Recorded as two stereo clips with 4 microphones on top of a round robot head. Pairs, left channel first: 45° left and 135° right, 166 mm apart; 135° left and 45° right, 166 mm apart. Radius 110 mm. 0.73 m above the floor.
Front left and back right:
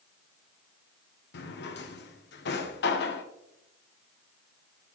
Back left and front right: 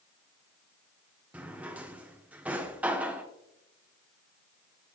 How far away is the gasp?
No gasp in this recording.